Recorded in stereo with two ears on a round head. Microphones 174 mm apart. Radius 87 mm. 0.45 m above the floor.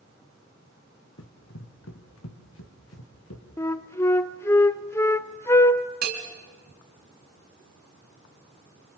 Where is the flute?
15° left (ahead or behind), 0.6 m.